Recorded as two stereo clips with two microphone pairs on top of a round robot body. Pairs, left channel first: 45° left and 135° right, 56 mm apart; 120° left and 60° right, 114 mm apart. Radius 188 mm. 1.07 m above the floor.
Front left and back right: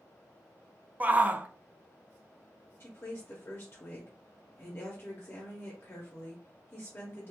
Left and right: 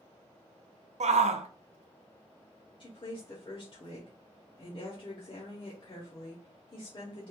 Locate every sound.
1.0 s a shout: 65° right, 0.6 m
2.8 s a woman speaking: 80° left, 1.1 m